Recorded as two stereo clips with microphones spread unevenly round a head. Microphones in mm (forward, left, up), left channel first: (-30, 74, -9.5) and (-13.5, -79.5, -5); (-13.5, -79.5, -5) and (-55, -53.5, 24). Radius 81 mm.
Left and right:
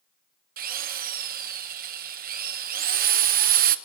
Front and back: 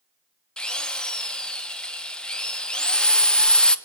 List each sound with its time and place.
0.6 s a drill: 65° right, 1.1 m